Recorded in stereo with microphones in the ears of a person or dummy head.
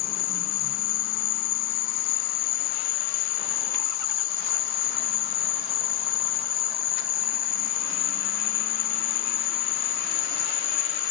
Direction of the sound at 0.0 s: 35° left (ahead or behind).